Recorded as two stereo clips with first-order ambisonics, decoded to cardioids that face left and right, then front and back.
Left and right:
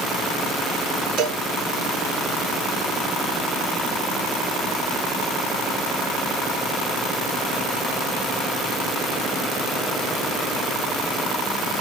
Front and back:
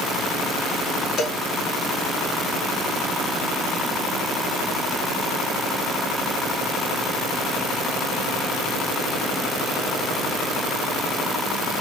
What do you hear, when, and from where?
1.2 s a cowbell: 55° right, 1.8 m